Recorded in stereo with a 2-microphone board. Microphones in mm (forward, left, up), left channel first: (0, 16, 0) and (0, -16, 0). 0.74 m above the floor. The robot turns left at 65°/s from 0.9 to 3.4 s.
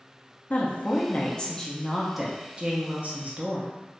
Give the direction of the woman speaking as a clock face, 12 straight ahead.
10 o'clock.